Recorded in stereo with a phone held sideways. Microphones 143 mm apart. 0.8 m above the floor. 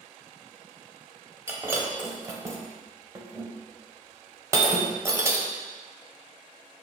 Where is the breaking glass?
20° right (ahead or behind), 0.7 m.